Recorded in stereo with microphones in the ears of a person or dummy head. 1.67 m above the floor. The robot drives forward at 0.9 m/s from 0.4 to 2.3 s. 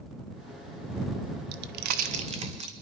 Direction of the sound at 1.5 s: 60° right (ahead or behind).